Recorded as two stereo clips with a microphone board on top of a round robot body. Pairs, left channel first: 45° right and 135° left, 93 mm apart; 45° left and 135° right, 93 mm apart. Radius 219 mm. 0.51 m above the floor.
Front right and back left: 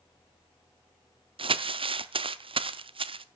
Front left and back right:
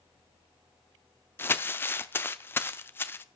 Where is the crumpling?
115° left, 0.7 m.